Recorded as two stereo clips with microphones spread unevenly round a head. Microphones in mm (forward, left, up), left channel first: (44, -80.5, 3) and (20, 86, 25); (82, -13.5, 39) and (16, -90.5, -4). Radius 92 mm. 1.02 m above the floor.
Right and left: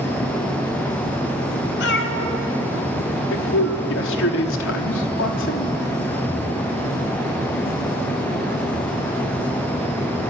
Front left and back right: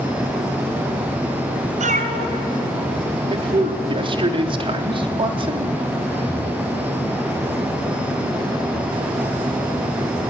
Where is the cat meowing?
120° right, 2 m.